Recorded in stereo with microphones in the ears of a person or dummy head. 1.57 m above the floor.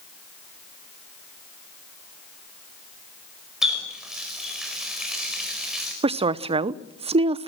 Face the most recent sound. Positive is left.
turn(degrees=-25)  # may be behind; listen again after turning